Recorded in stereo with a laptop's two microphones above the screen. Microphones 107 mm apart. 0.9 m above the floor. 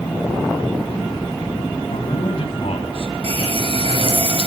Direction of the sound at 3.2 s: 65° right (ahead or behind).